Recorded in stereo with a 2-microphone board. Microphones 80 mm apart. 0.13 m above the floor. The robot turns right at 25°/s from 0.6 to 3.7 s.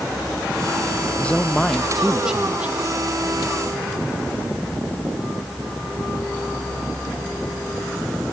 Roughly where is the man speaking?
Behind.